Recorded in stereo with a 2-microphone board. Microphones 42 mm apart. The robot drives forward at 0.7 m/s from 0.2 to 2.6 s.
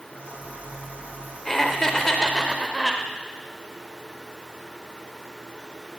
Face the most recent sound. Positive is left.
turn(degrees=10)  # may be behind; listen again after turning